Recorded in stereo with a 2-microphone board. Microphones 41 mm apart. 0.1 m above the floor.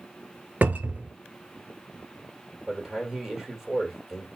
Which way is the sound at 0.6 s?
50° right (ahead or behind).